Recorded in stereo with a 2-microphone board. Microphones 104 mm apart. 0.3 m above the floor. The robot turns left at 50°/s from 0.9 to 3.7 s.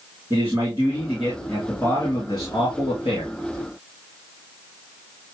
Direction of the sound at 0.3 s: 155° right.